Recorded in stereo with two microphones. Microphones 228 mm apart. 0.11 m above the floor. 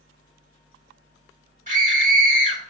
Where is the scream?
35° right (ahead or behind), 1.3 m.